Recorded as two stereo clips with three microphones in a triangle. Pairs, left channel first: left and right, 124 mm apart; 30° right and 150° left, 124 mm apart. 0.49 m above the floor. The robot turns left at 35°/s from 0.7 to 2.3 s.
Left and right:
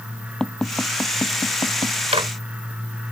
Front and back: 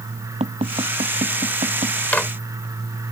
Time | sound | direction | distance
0.4 | tapping | 175° left | ?
2.1 | a microwave | 105° right | ?